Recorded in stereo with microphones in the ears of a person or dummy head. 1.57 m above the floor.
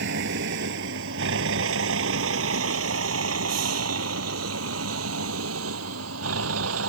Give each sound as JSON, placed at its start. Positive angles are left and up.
{"t": 0.0, "sound": "a vehicle", "side_deg": -60}